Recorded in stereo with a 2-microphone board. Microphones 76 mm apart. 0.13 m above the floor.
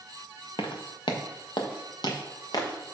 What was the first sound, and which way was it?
Footsteps, 85° left.